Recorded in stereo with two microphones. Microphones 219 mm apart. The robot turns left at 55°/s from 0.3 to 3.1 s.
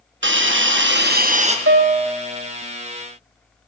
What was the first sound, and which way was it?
A hiss, 75° right.